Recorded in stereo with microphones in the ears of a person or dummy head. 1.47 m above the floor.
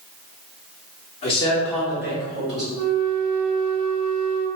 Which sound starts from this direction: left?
A man speaking, at 1.2 s.